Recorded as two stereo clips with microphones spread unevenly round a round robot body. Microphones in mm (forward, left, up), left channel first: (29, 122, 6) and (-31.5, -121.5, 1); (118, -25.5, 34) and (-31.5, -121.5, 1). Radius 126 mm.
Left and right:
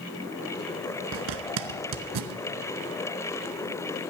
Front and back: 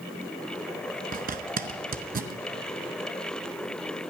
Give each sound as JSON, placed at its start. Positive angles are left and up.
{"t": 1.1, "sound": "a zipper", "azimuth_deg": -105, "distance_m": 0.8}